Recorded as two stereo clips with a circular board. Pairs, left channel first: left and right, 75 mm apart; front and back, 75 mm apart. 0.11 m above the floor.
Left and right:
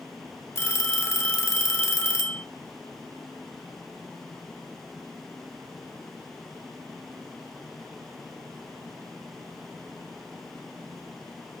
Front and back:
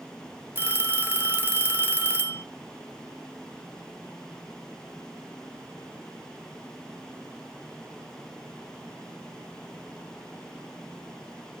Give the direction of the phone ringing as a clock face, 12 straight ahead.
8 o'clock.